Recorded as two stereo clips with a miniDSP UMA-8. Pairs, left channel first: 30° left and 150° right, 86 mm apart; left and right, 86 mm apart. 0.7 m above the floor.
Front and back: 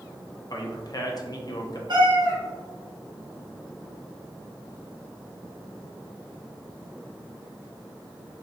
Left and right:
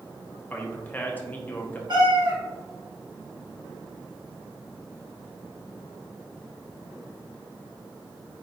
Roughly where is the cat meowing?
Behind right.